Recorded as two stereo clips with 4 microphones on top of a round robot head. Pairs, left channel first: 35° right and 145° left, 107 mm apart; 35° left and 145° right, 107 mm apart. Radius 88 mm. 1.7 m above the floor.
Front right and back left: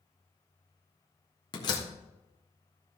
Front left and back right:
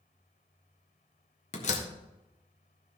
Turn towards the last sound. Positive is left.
turn(degrees=15)